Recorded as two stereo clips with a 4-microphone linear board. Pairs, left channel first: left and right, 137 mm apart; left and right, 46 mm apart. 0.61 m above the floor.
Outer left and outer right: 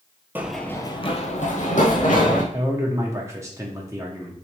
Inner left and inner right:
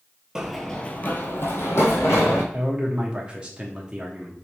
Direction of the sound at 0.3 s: 15° right (ahead or behind).